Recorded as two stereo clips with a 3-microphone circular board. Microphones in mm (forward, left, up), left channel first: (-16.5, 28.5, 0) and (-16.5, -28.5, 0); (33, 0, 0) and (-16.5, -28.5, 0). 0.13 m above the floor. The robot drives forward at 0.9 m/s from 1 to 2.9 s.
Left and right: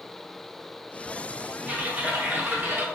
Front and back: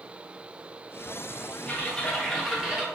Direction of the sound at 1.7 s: 25° right.